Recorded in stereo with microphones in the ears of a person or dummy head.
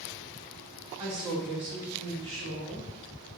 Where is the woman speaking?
10° right (ahead or behind), 3 m; by 2.9 s 30° right (ahead or behind), 3.5 m.